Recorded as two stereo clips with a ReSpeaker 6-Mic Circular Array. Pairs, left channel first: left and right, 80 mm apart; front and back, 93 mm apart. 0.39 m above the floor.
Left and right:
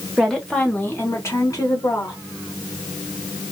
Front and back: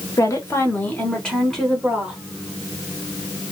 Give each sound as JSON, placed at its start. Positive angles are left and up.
{"t": 0.2, "sound": "a woman speaking", "azimuth_deg": 0, "distance_m": 1.1}